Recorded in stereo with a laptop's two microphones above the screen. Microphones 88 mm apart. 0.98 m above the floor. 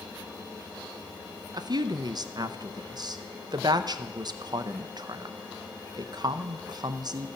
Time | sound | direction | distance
1.5 | a woman speaking | 50° right (ahead or behind) | 0.6 m